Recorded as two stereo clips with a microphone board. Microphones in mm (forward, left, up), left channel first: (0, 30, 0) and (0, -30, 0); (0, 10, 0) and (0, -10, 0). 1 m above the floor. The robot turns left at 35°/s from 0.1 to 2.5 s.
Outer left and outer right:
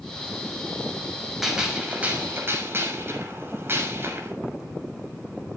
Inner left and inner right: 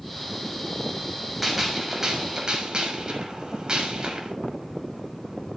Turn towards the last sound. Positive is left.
turn(degrees=-40)